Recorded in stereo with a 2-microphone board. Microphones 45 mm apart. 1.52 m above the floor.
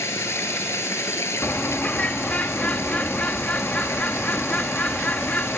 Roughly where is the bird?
Left.